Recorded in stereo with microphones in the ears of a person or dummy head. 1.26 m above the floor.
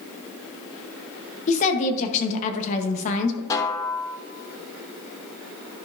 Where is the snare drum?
20° left (ahead or behind), 0.7 m.